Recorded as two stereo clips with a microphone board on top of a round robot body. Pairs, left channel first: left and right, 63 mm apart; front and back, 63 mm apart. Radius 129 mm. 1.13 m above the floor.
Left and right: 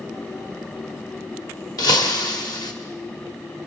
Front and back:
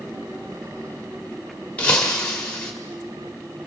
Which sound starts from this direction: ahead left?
Breaking glass, at 1.8 s.